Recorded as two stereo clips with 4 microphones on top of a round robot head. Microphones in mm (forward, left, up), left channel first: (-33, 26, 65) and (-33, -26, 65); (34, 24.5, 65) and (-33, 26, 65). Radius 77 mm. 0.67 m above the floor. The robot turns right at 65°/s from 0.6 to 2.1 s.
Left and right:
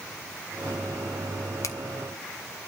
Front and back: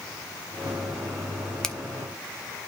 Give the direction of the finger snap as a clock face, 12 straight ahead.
9 o'clock.